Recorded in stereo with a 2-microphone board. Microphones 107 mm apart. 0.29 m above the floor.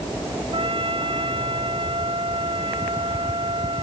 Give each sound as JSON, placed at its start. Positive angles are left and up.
{"t": 0.5, "sound": "a trumpet", "side_deg": -55}